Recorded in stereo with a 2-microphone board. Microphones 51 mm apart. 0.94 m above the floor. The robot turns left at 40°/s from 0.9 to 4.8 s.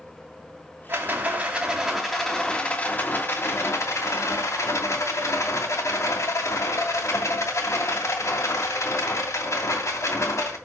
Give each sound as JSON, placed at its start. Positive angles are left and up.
{"t": 0.9, "sound": "a rattle", "azimuth_deg": -135, "distance_m": 2.5}